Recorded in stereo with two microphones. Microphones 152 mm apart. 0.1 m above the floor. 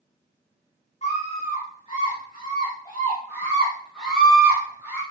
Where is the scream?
45° left (ahead or behind), 6 m; by 5.0 s 20° right (ahead or behind), 4 m.